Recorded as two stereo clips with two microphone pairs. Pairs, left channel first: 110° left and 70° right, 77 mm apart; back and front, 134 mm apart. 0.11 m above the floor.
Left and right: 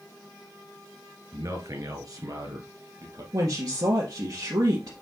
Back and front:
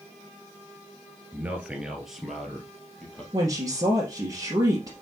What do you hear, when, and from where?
1.3 s a man speaking: 70° right, 1.5 m; by 3.2 s 95° right, 3 m
3.3 s a woman speaking: 55° right, 2.5 m